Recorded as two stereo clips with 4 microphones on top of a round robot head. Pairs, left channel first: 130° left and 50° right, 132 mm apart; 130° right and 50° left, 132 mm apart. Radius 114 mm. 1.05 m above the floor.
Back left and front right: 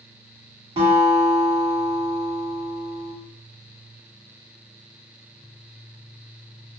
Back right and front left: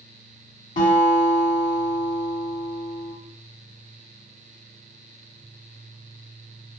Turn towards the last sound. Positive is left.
turn(degrees=-100)